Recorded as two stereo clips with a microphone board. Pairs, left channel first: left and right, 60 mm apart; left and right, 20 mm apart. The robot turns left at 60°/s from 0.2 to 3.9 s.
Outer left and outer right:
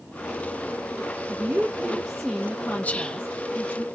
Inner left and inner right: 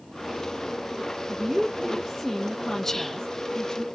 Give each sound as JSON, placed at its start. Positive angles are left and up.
{"t": 1.3, "sound": "a woman speaking", "azimuth_deg": -120, "distance_m": 0.6}
{"t": 2.8, "sound": "whispering", "side_deg": 25, "distance_m": 0.6}